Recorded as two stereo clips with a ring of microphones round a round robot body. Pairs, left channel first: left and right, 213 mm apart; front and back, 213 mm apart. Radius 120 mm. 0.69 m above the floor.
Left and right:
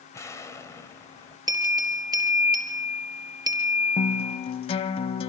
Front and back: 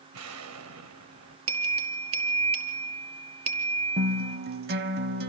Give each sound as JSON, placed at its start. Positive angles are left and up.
{"t": 0.1, "sound": "an explosion", "azimuth_deg": 165, "distance_m": 2.0}
{"t": 1.5, "sound": "a bell", "azimuth_deg": -160, "distance_m": 4.0}
{"t": 4.0, "sound": "a guitar", "azimuth_deg": 145, "distance_m": 0.6}